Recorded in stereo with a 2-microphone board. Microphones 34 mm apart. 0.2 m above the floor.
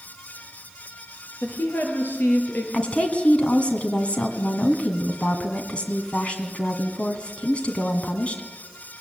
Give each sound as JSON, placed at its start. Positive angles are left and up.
{"t": 1.4, "sound": "a woman speaking", "side_deg": 65, "distance_m": 5.0}
{"t": 2.7, "sound": "a woman speaking", "side_deg": 35, "distance_m": 1.7}